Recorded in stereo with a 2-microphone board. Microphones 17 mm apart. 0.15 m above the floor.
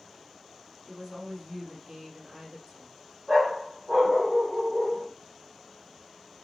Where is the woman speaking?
25° right (ahead or behind), 4.5 m; by 2.9 s 40° right (ahead or behind), 3.5 m.